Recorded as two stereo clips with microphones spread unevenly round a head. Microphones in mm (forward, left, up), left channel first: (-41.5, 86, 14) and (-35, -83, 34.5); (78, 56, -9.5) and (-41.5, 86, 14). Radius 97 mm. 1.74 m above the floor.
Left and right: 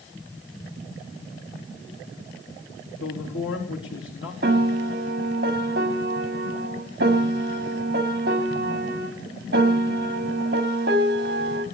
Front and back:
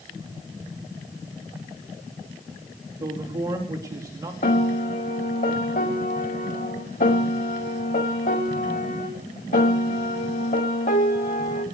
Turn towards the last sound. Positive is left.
turn(degrees=-55)